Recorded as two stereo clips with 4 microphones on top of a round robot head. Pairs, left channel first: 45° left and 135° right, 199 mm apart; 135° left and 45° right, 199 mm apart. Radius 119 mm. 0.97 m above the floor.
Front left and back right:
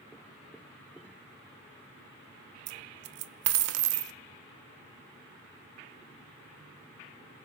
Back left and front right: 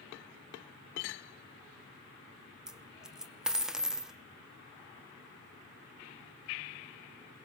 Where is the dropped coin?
130° right, 0.7 m.